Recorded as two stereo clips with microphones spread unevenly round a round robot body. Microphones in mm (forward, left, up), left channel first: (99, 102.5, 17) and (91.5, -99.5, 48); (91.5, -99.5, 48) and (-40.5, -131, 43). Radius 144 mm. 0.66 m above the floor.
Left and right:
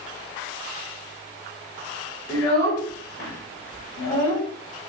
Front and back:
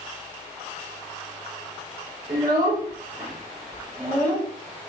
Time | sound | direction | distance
2.3 | a child speaking | 130° left | 2.0 m